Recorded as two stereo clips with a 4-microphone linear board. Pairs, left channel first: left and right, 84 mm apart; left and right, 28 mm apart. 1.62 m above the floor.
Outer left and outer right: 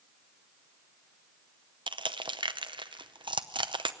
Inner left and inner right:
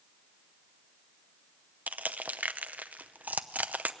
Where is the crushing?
70° right (ahead or behind), 0.7 m.